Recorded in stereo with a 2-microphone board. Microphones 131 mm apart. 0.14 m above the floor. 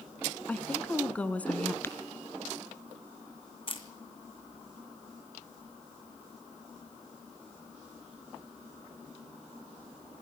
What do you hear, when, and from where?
0.5 s a woman speaking: 10° left (ahead or behind), 1.2 m
1.8 s tapping: 15° left (ahead or behind), 1.9 m
3.7 s a camera shutter: 40° left (ahead or behind), 1.8 m